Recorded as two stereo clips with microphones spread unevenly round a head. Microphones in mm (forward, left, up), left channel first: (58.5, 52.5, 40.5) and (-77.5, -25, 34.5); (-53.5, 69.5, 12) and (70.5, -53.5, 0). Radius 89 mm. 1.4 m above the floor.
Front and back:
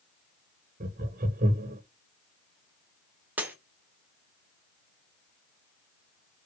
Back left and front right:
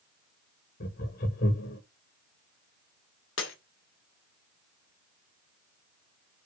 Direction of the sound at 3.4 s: 130° left.